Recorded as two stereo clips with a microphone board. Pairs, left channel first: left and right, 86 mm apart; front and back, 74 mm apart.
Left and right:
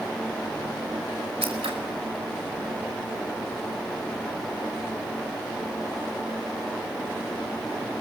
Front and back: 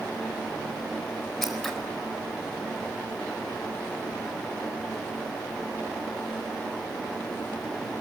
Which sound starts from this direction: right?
Scissors, at 1.4 s.